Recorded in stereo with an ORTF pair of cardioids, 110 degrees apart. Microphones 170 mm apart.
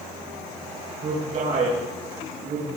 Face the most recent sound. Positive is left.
turn(degrees=-45)